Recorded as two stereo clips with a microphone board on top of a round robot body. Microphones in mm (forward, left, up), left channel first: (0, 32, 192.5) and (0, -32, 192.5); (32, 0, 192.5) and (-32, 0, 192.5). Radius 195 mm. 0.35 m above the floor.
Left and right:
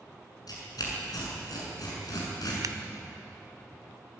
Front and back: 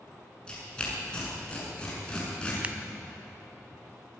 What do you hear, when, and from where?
0.5 s tearing paper: 75° left, 6.5 m
2.6 s scissors: 110° right, 0.6 m